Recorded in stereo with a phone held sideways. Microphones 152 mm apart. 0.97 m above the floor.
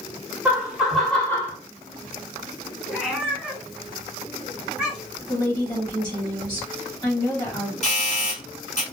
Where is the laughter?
10° right (ahead or behind), 1.5 m; by 1.6 s 20° left (ahead or behind), 0.8 m.